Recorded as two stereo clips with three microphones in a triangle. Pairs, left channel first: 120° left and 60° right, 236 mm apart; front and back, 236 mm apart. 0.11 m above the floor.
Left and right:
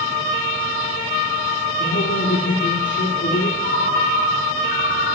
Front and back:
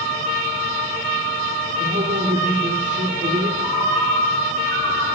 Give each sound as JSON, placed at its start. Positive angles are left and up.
{"t": 1.8, "sound": "a man speaking", "azimuth_deg": 135, "distance_m": 2.0}
{"t": 3.6, "sound": "a ringtone", "azimuth_deg": 70, "distance_m": 1.4}